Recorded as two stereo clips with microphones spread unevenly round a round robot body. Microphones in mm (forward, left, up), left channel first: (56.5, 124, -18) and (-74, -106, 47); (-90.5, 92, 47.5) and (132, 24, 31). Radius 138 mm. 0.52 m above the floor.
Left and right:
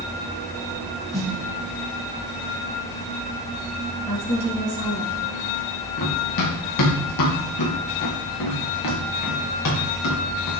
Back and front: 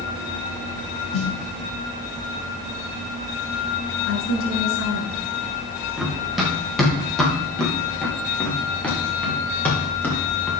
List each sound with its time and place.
1.1 s a snare drum: 145° left, 4.5 m
4.1 s a woman speaking: 130° left, 6 m
6.0 s running footsteps: 70° left, 5 m; by 10.5 s 80° left, 8 m